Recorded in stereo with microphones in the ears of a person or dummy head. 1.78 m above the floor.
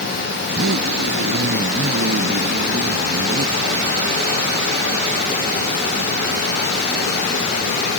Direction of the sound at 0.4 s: 70° right (ahead or behind).